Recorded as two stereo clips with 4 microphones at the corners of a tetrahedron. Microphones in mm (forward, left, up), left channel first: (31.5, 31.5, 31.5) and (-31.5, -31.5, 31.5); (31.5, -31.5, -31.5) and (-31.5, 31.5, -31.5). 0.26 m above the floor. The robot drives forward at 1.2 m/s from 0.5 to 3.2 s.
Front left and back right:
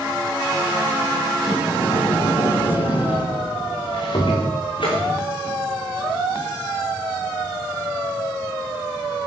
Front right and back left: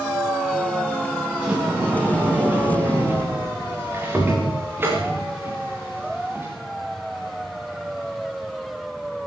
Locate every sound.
1.3 s a sliding door: 55° left, 8.5 m; by 6.5 s 70° left, 7.5 m